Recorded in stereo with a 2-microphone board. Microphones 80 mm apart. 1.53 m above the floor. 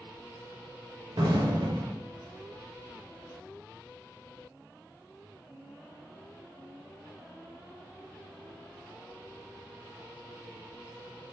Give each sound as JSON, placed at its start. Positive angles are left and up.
{"t": 1.2, "sound": "an explosion", "side_deg": -70, "distance_m": 0.7}